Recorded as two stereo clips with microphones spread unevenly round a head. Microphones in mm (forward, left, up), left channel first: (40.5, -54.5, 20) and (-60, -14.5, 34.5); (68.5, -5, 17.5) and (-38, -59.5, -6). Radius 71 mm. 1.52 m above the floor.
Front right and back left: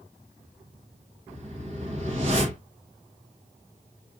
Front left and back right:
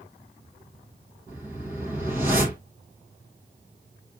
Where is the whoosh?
125° left, 1.0 m.